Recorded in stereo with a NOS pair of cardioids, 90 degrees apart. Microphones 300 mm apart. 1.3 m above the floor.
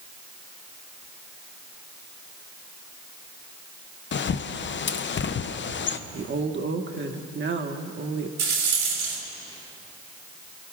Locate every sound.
4.1 s a bird: 40° left, 0.7 m
6.1 s a woman speaking: 35° right, 1.5 m
8.4 s a rattle: 70° right, 5 m